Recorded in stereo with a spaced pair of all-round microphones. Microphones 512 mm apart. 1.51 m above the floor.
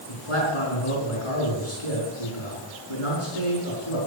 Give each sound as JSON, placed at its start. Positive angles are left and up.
{"t": 0.1, "sound": "a man speaking", "side_deg": 85, "distance_m": 4.5}